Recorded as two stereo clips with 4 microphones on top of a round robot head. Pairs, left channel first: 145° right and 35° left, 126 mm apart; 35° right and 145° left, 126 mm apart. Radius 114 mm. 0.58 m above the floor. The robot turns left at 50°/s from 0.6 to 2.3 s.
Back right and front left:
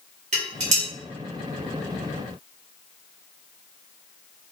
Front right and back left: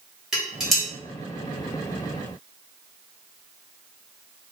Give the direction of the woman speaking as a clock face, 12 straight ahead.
No woman speaking in this recording.